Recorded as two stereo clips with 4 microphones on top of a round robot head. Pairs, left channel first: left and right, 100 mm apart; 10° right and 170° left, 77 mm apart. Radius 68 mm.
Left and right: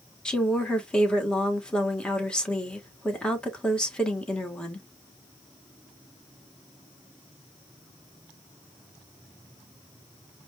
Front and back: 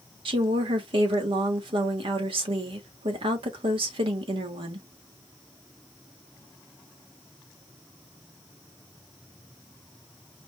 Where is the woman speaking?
170° left, 1.8 m.